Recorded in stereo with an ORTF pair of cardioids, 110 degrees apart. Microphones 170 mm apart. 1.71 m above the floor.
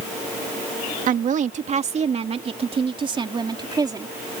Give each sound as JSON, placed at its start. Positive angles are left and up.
{"t": 1.1, "sound": "a woman speaking", "azimuth_deg": -50}